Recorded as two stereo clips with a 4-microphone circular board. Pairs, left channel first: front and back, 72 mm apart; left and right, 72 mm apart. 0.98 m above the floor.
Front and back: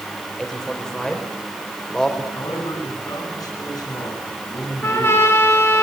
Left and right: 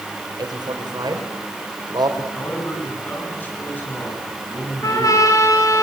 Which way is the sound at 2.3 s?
25° left.